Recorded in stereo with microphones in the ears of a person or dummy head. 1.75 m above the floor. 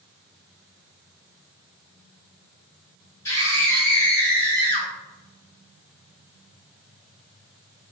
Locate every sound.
3.2 s a scream: 15° left (ahead or behind), 1.6 m; by 4.9 s 5° left (ahead or behind), 2.5 m